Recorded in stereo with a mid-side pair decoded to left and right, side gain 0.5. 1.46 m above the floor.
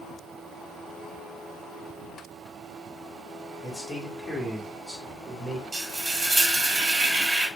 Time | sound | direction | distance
3.6 | a man speaking | 25° left | 1.6 m
5.7 | frying | 20° right | 1.7 m